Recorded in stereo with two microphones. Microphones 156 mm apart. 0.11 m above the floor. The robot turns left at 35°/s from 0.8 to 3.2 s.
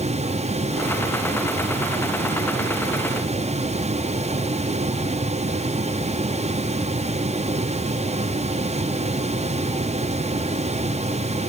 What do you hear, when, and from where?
Only background noise.